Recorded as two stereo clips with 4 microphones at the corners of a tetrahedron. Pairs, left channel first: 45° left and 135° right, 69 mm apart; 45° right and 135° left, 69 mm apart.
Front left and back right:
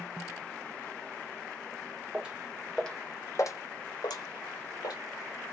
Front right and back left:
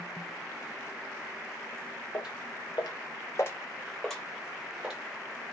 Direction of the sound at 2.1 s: 60° right.